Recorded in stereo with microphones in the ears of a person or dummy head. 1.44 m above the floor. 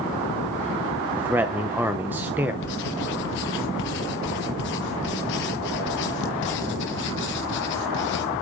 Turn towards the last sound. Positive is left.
turn(degrees=60)  # may be behind; listen again after turning